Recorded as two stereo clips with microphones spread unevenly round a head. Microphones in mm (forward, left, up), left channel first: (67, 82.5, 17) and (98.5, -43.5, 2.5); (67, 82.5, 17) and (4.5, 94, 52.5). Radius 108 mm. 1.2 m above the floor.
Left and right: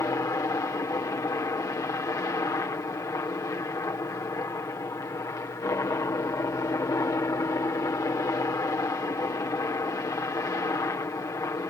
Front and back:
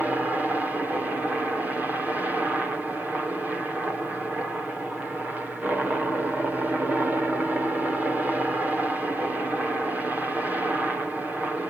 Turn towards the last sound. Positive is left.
turn(degrees=65)